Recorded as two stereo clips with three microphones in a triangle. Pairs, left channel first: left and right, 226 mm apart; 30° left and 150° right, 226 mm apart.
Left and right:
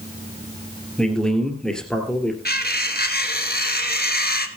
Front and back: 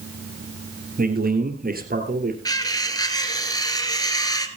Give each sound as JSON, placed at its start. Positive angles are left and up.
{"t": 1.0, "sound": "a man speaking", "azimuth_deg": 175, "distance_m": 2.5}
{"t": 2.5, "sound": "cutlery clinking", "azimuth_deg": 95, "distance_m": 1.2}